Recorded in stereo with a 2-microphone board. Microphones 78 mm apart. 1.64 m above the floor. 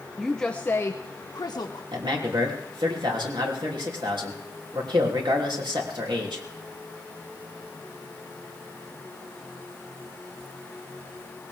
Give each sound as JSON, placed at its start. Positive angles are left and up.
{"t": 0.2, "sound": "a woman speaking", "side_deg": -5, "distance_m": 0.9}
{"t": 1.9, "sound": "a man speaking", "side_deg": -90, "distance_m": 3.0}